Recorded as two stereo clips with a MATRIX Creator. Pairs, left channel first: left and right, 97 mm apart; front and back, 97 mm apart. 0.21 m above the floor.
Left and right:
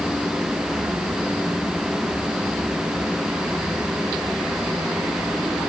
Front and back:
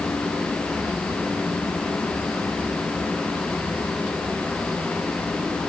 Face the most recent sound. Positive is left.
No sound to turn to.